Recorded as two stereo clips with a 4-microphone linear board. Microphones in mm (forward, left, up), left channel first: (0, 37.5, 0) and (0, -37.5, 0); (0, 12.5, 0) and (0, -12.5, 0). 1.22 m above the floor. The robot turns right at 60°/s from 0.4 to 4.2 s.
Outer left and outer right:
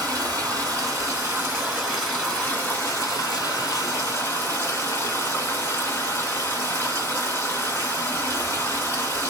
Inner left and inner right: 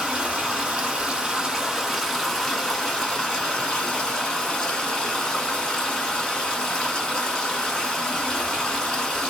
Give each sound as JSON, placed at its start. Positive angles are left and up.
{"t": 0.0, "sound": "running water", "azimuth_deg": -95, "distance_m": 1.6}